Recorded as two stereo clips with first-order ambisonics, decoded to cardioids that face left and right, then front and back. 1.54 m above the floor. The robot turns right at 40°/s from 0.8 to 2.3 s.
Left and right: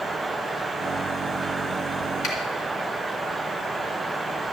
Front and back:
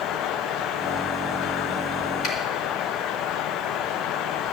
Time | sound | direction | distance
2.2 | a finger snap | 50° left | 3 m